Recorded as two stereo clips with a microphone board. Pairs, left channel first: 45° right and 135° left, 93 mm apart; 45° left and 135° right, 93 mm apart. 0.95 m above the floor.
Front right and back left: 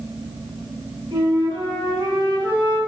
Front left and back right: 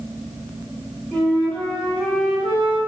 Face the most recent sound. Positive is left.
turn(degrees=125)